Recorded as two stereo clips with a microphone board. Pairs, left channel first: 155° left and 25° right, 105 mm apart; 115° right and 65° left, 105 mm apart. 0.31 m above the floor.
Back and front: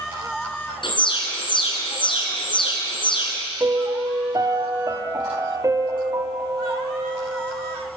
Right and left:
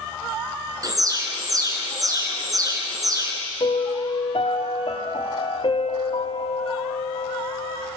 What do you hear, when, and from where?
0.8 s an alarm: 120° left, 3.5 m
3.6 s a piano: 80° right, 1.6 m